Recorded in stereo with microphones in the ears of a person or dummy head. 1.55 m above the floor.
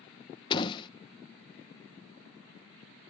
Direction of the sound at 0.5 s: 25° left (ahead or behind).